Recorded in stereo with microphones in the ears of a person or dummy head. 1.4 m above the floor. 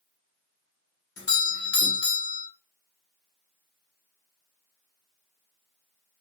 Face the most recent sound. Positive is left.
turn(degrees=50)  # may be behind; listen again after turning